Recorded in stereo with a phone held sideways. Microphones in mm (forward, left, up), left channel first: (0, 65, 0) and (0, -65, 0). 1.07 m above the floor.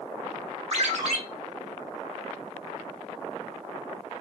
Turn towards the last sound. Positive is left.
turn(degrees=-55)  # may be behind; listen again after turning